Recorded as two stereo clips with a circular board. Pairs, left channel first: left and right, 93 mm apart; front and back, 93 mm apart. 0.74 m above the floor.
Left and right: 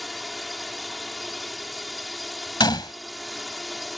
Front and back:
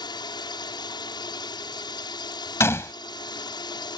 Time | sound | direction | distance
0.0 | a drone | straight ahead | ?
2.6 | a gunshot | 60° left | ?